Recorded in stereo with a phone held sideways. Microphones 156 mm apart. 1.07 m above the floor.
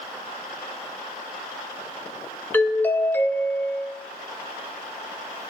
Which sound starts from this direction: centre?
A doorbell, at 2.5 s.